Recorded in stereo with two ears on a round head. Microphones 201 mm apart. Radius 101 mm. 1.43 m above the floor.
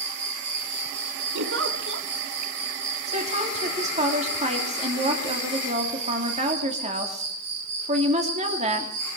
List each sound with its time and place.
0.0 s an insect: 80° right, 5 m
1.4 s a giggle: 60° right (ahead or behind), 1.6 m
3.1 s a woman speaking: 30° right (ahead or behind), 2.5 m